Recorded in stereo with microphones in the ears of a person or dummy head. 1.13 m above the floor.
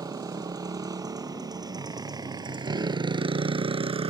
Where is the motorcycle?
20° right (ahead or behind); by 4.1 s 30° right (ahead or behind).